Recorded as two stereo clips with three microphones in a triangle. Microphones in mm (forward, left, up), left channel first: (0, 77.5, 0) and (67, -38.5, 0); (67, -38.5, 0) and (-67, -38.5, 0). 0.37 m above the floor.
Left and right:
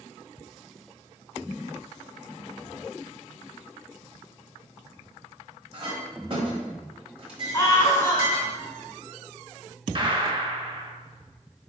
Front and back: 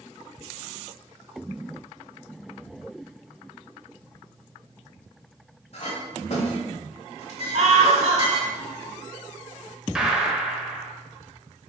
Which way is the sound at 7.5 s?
175° right.